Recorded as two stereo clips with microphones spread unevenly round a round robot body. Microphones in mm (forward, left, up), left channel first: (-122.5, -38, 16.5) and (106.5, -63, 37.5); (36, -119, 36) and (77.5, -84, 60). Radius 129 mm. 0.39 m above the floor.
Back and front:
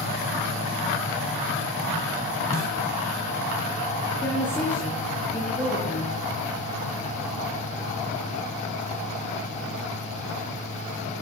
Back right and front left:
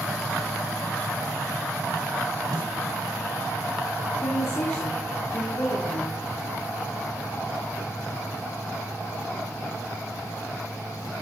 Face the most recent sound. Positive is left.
turn(degrees=-105)